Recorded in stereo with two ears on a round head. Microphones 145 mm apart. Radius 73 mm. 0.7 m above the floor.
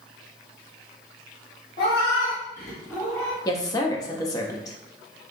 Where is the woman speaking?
20° left (ahead or behind), 0.5 m.